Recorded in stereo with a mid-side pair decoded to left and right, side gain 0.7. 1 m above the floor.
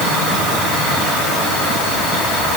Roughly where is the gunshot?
I don't hear a gunshot.